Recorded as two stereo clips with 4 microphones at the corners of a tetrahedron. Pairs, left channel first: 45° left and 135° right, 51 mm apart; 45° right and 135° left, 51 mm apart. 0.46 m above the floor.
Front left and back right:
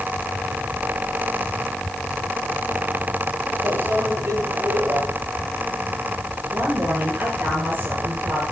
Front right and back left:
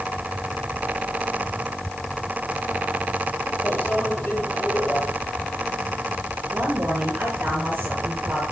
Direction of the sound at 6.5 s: 175° left.